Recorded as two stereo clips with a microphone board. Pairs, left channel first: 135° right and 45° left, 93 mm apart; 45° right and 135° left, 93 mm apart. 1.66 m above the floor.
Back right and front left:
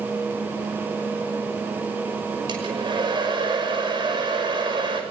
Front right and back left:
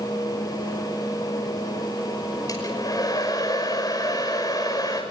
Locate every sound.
2.5 s a hair dryer: 5° left, 6 m